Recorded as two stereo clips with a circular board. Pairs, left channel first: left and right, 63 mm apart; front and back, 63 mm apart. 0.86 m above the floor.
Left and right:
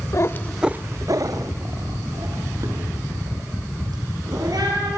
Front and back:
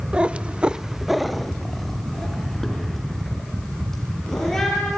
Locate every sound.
0.1 s a cat meowing: 110° left, 0.8 m; by 5.0 s 85° right, 6.5 m